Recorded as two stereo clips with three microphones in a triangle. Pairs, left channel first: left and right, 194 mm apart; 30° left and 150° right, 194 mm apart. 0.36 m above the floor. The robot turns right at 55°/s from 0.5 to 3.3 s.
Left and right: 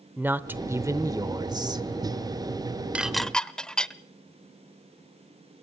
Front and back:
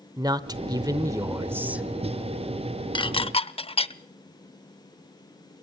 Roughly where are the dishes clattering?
Ahead.